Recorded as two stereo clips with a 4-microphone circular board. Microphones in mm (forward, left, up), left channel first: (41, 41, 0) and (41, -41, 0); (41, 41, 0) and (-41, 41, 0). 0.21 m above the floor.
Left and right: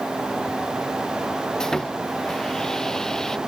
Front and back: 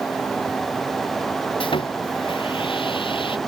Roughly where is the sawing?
Ahead.